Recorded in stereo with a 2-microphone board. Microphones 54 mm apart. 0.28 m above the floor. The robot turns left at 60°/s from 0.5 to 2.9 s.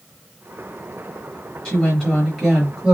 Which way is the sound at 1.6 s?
20° left (ahead or behind).